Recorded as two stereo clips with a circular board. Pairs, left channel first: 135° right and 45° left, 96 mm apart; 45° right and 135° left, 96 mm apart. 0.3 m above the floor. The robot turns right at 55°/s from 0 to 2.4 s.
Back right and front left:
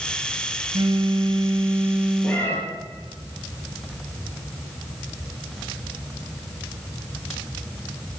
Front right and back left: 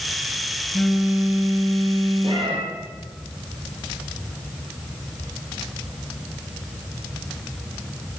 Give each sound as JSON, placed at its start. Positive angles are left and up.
{"t": 0.7, "sound": "a phone buzzing", "azimuth_deg": 45, "distance_m": 0.6}
{"t": 2.2, "sound": "a cat meowing", "azimuth_deg": 150, "distance_m": 2.5}